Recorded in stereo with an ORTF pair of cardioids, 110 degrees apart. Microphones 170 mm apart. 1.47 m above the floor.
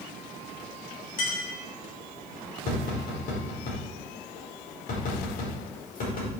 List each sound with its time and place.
1.2 s a clink: 55° left, 5.5 m
2.7 s tapping: 60° left, 5 m